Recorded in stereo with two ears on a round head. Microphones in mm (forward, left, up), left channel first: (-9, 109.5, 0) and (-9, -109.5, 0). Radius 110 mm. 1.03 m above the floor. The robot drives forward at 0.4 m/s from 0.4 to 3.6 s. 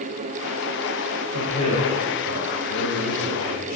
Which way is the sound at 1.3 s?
80° left.